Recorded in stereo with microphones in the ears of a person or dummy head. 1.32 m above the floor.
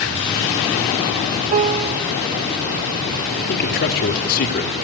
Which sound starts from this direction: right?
A piano, at 1.5 s.